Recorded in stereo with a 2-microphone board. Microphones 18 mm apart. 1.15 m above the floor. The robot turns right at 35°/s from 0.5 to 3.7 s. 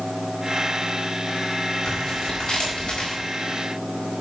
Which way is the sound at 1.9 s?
40° left.